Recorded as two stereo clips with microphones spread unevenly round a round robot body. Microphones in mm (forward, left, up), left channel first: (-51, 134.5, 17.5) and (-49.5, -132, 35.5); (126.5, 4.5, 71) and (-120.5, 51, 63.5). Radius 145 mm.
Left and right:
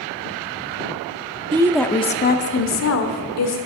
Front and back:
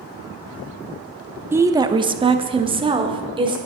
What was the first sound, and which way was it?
A woman speaking, 130° right.